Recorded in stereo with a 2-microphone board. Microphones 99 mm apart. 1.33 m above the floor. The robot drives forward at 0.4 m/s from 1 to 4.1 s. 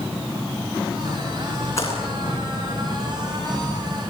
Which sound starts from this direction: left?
A splash, at 1.0 s.